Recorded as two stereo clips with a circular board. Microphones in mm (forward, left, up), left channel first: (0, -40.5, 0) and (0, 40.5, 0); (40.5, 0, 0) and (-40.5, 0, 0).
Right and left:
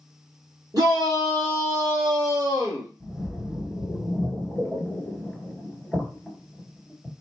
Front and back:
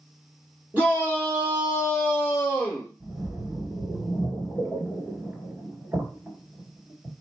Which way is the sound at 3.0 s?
170° right.